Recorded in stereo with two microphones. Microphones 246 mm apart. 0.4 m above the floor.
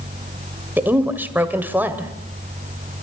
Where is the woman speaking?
10° right (ahead or behind), 1.8 m.